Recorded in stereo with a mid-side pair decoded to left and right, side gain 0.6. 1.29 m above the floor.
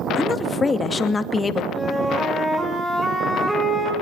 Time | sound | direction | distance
0.1 | a woman speaking | 20° left | 2 m
1.7 | a flute | 15° right | 6.5 m